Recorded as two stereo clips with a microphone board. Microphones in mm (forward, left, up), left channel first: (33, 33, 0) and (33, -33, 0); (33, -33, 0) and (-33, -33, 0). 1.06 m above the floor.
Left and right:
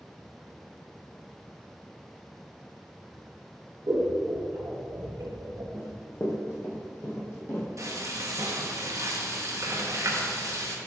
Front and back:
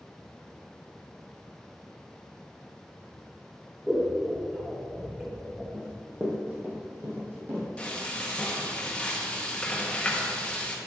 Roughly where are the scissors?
Right.